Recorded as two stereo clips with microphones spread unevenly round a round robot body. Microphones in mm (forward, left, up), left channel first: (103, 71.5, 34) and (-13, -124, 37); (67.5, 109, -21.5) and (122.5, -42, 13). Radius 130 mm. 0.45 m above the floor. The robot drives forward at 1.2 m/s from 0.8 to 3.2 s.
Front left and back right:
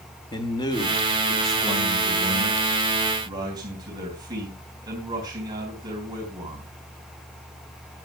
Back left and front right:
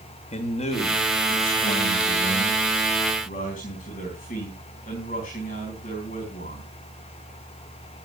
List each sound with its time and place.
0.3 s a man speaking: 125° left, 1.6 m; by 6.7 s 165° left, 4 m